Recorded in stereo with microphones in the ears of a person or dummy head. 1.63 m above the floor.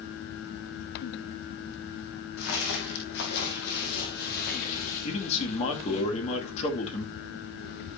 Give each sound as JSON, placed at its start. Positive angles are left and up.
{"t": 2.4, "sound": "footsteps", "side_deg": 60, "distance_m": 3.5}
{"t": 5.0, "sound": "a man speaking", "side_deg": 35, "distance_m": 2.5}